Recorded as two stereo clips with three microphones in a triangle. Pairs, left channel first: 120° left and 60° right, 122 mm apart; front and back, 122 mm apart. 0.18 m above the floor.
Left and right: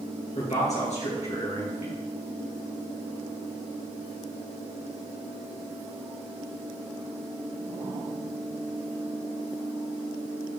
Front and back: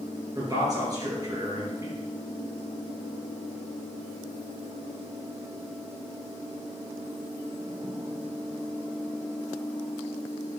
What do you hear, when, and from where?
0.3 s a man speaking: 125° left, 3 m